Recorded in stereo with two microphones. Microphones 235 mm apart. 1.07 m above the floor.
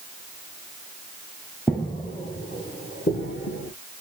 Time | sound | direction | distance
1.7 | footsteps | 5° left (ahead or behind) | 1.2 m